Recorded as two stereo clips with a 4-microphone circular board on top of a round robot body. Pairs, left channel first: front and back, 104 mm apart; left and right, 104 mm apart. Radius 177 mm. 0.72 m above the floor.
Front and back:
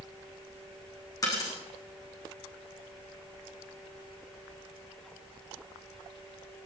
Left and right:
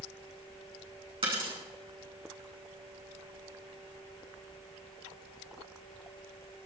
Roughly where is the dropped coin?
Ahead right.